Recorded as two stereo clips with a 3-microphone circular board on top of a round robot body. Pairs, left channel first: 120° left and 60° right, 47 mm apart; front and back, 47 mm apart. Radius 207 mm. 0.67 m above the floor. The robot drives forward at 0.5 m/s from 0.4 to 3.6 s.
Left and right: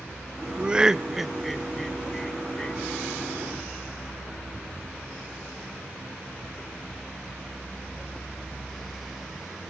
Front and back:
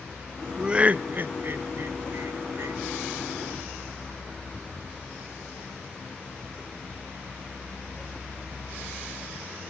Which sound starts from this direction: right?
Laughter, at 0.6 s.